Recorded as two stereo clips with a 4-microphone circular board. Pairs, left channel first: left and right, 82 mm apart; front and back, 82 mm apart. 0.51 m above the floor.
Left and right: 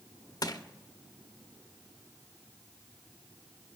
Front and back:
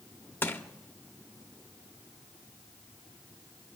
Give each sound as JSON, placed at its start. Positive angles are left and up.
{"t": 0.4, "sound": "crushing", "azimuth_deg": 60, "distance_m": 0.8}